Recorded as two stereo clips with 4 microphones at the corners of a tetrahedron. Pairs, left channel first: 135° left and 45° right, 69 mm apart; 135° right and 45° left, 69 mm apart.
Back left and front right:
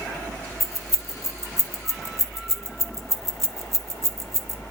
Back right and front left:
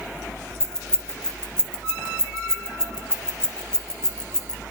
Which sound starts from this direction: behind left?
Keys jangling, at 0.6 s.